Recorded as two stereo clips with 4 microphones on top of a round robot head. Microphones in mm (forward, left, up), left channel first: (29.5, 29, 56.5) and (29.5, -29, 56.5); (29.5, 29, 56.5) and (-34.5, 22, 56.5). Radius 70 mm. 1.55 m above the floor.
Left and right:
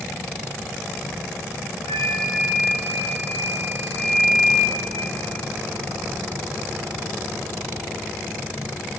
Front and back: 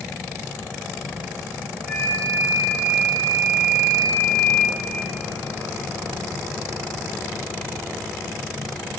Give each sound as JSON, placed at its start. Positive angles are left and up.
{"t": 1.9, "sound": "a flute", "azimuth_deg": 100, "distance_m": 2.0}